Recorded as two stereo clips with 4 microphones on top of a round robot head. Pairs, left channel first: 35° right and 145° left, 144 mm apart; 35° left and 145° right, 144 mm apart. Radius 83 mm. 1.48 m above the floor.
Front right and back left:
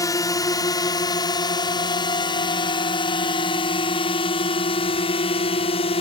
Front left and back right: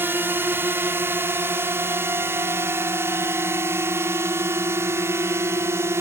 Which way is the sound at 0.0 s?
80° right.